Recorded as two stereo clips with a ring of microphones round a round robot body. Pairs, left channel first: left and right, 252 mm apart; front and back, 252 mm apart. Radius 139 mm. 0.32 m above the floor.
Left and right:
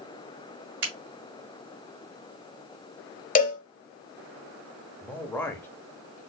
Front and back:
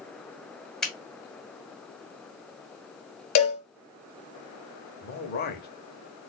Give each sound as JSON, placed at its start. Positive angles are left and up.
{"t": 0.8, "sound": "a finger snap", "azimuth_deg": -85, "distance_m": 2.0}
{"t": 3.4, "sound": "a cowbell", "azimuth_deg": 30, "distance_m": 0.8}
{"t": 5.0, "sound": "a man speaking", "azimuth_deg": 15, "distance_m": 1.0}